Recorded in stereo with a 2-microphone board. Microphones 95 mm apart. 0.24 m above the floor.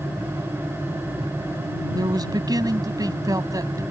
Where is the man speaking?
45° right (ahead or behind); by 3.8 s 40° right (ahead or behind).